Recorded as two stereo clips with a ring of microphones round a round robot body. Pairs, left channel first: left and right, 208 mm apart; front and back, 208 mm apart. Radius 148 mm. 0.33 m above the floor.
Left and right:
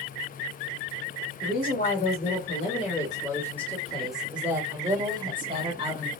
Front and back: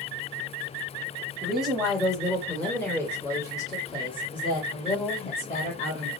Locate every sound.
1.4 s a woman speaking: 95° left, 1.8 m; by 6.1 s 45° right, 1.9 m